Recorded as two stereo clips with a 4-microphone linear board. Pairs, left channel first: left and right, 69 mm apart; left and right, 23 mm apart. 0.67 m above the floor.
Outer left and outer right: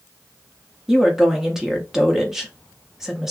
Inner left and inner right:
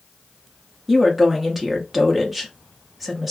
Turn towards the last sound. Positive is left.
turn(degrees=-5)  # may be behind; listen again after turning